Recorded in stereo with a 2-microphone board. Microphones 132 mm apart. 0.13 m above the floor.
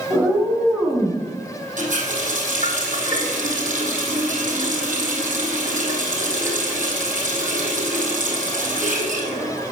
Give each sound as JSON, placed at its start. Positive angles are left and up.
{"t": 0.1, "sound": "a cat meowing", "side_deg": -30, "distance_m": 6.0}
{"t": 1.8, "sound": "a running tap", "side_deg": -75, "distance_m": 3.0}